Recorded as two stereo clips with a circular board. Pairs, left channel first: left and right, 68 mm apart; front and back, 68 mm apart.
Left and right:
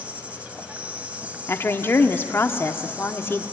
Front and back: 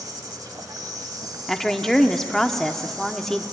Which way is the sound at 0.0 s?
160° right.